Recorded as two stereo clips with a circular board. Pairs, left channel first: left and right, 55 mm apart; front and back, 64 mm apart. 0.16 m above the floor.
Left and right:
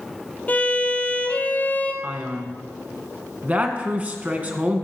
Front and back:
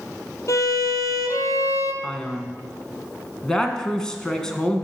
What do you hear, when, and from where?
0.5 s a violin: 30° left, 1.2 m
2.0 s a man speaking: 70° right, 1.4 m